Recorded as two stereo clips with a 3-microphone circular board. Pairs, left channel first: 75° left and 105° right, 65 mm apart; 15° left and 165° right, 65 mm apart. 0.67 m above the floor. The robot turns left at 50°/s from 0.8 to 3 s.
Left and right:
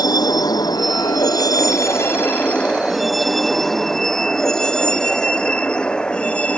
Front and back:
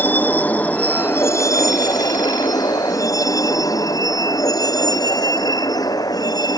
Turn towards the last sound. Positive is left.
turn(degrees=5)